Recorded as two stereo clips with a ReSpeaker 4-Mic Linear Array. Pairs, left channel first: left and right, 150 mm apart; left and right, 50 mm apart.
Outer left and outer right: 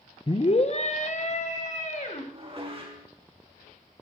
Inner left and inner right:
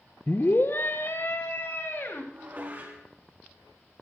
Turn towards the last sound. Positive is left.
turn(degrees=-40)  # may be behind; listen again after turning